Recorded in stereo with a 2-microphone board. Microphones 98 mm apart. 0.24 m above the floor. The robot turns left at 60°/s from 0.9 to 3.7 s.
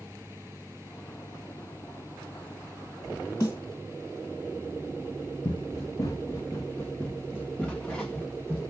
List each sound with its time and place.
3.4 s a snare drum: 25° left (ahead or behind), 2.5 m; by 3.6 s 35° left (ahead or behind), 2.5 m
5.5 s running footsteps: 55° left (ahead or behind), 0.6 m; by 8.7 s 5° left (ahead or behind), 1.9 m